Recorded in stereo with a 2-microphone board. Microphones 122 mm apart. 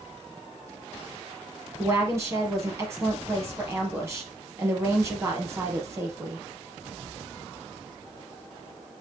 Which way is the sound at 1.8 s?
25° right (ahead or behind).